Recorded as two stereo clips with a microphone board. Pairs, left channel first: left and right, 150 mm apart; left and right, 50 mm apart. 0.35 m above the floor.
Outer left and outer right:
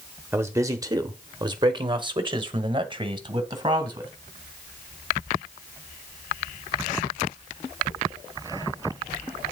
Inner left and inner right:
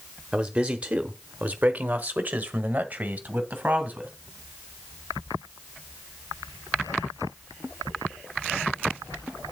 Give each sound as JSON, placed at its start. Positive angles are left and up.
{"t": 0.3, "sound": "a man speaking", "side_deg": -15, "distance_m": 0.9}